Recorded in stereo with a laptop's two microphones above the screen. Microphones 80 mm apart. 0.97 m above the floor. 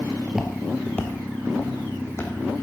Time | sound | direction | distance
0.3 | footsteps | 15° right (ahead or behind) | 1.3 m